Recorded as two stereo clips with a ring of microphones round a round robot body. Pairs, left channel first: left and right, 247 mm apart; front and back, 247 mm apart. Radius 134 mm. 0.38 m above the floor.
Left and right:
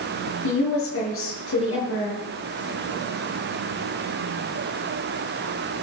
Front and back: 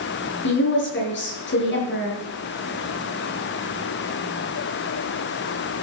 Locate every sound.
0.4 s a woman speaking: 45° left, 7 m